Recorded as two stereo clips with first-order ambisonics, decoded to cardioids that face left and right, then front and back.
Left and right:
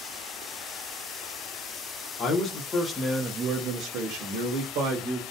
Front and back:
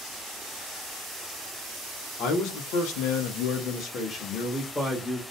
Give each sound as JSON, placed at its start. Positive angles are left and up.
{"t": 2.2, "sound": "a man speaking", "azimuth_deg": 35, "distance_m": 0.8}